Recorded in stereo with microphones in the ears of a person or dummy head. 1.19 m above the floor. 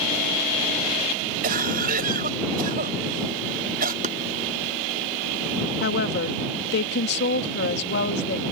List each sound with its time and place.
1.4 s a cough: 50° right (ahead or behind)
4.0 s chopping: 45° right (ahead or behind)
5.8 s a woman speaking: 65° left (ahead or behind)